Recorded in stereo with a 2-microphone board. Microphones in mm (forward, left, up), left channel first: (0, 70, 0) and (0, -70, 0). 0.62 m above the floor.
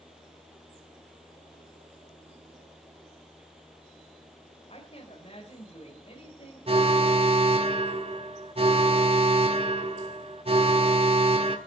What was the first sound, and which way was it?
A woman speaking, 45° left (ahead or behind).